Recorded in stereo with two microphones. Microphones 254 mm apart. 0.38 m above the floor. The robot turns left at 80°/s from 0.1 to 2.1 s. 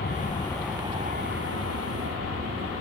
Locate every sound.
0.0 s an aircraft: 45° left; by 2.8 s 115° right